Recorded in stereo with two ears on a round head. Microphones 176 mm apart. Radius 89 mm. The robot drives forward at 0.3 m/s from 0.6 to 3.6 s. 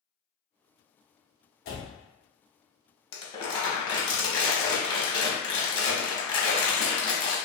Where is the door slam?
50° left (ahead or behind), 1.0 m.